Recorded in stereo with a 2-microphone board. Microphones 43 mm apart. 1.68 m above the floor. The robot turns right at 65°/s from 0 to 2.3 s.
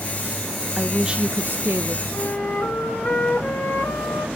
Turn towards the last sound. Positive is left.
turn(degrees=55)  # may be behind; listen again after turning